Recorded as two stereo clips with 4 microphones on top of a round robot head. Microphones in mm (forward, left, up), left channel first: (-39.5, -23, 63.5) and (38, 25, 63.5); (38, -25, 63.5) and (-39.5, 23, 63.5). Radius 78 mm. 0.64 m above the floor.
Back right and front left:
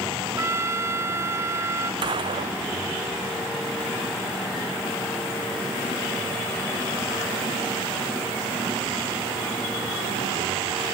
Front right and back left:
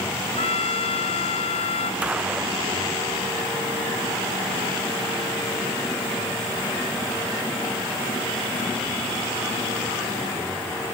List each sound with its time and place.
0.4 s a trumpet: 30° right
2.0 s a gunshot: 70° left